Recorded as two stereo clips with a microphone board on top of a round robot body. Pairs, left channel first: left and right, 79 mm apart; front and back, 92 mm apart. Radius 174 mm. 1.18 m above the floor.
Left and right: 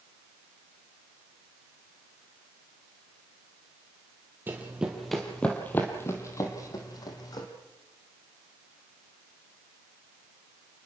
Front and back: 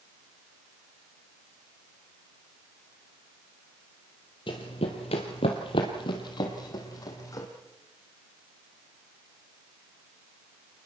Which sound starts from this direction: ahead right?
Running footsteps, at 4.5 s.